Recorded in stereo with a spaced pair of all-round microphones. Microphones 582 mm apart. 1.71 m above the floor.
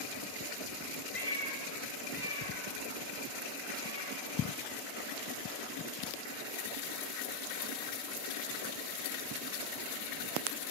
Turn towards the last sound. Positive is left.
turn(degrees=65)  # may be behind; listen again after turning